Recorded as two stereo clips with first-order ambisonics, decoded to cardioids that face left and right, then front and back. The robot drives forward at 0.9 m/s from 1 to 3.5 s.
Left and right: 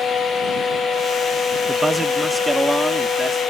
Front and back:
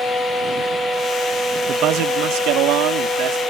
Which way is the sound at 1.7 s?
165° right.